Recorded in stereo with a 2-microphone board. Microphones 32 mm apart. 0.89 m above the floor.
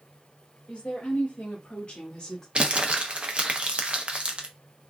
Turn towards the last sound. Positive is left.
turn(degrees=-40)  # may be behind; listen again after turning